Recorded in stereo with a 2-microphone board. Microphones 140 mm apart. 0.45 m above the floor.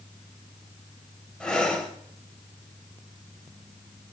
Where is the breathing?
5° left (ahead or behind), 1.5 m.